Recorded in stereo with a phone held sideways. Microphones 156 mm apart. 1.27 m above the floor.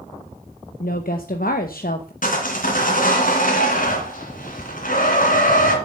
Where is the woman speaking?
70° left (ahead or behind), 1.0 m.